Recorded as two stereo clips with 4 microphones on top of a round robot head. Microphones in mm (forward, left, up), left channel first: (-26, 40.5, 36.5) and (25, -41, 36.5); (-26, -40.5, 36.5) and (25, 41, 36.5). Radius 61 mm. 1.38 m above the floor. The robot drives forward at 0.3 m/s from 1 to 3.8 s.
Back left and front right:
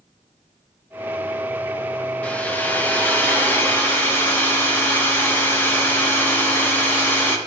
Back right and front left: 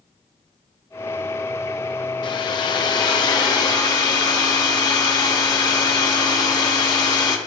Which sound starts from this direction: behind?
A hair dryer, at 2.2 s.